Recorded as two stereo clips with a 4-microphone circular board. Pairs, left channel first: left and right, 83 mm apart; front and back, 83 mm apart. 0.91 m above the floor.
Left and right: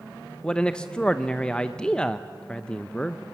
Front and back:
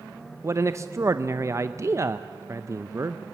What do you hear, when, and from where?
0.4 s a man speaking: 165° left, 0.5 m